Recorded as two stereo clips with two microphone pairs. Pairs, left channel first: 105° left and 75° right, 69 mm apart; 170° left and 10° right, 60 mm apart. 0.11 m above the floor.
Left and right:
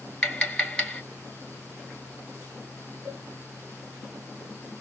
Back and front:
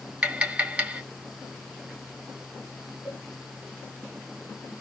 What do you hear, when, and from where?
0.2 s tapping: 40° left, 1.1 m
3.0 s a cowbell: 75° right, 1.6 m